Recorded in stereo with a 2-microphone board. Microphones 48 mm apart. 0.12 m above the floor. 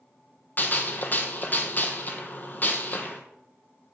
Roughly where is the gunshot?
Left.